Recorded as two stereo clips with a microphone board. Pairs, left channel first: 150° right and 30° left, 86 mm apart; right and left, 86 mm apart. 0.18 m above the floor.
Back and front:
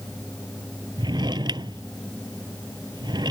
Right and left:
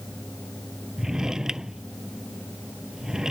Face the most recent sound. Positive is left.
turn(degrees=5)